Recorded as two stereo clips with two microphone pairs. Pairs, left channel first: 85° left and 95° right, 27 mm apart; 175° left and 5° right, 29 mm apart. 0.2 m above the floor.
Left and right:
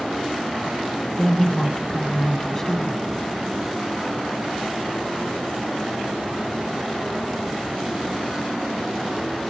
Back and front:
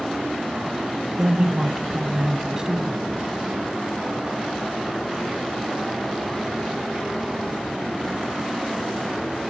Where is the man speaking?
35° left, 1.3 m.